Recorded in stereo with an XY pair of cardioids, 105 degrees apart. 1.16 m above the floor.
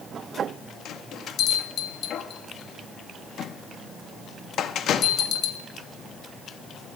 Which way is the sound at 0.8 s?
65° left.